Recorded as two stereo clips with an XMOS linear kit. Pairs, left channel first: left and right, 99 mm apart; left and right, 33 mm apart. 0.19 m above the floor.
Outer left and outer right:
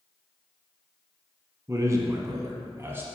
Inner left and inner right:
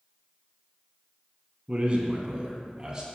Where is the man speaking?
30° right (ahead or behind), 1.4 m; by 3.1 s 20° right (ahead or behind), 1.2 m.